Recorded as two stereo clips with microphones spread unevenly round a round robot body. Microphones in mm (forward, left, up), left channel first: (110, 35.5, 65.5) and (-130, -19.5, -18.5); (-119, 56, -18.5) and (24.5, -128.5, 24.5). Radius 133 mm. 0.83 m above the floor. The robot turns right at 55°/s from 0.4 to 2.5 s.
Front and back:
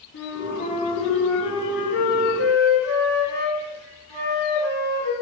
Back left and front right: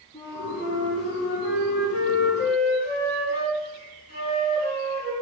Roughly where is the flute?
Ahead left.